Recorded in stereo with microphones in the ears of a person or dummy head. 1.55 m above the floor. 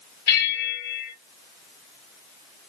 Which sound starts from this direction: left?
A bell, at 0.3 s.